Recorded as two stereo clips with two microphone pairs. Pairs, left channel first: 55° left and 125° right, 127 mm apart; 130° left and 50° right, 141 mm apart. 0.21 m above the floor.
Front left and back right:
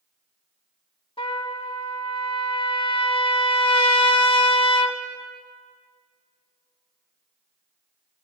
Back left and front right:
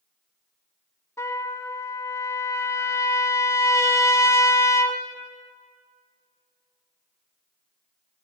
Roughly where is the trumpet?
Left.